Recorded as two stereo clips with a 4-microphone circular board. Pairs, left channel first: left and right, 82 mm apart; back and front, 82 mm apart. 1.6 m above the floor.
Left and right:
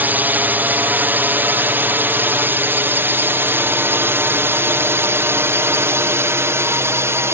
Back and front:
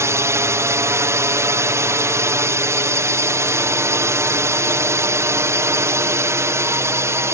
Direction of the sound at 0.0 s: 35° right.